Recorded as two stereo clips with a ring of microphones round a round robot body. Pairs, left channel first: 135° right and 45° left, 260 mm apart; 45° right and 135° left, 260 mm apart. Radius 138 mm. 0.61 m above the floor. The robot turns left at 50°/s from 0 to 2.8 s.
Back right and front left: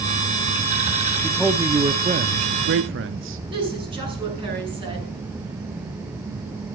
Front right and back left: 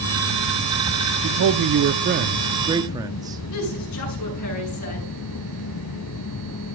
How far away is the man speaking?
About 0.8 m.